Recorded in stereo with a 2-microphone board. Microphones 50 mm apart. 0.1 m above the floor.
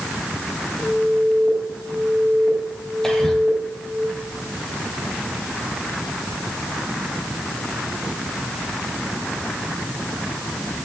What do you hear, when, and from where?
0.8 s an alarm: 20° left (ahead or behind), 9.5 m
3.0 s whispering: 10° left (ahead or behind), 3.5 m